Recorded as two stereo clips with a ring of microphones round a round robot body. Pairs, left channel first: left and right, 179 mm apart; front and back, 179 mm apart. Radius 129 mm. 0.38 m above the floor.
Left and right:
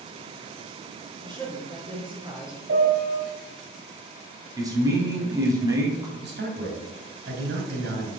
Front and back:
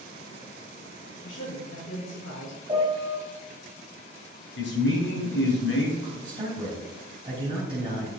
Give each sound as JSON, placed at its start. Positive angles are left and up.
{"t": 1.2, "sound": "a woman speaking", "azimuth_deg": -25, "distance_m": 4.0}
{"t": 2.7, "sound": "a piano", "azimuth_deg": -110, "distance_m": 2.5}
{"t": 4.6, "sound": "a man speaking", "azimuth_deg": -20, "distance_m": 3.0}
{"t": 6.2, "sound": "a man speaking", "azimuth_deg": -115, "distance_m": 3.0}